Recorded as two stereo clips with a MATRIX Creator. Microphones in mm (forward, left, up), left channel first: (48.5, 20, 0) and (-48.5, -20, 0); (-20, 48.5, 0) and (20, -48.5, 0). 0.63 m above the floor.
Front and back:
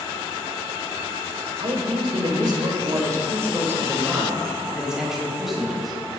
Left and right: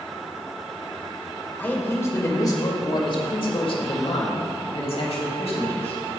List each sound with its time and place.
1.6 s a man speaking: straight behind, 2.5 m; by 6.0 s 110° left, 4.5 m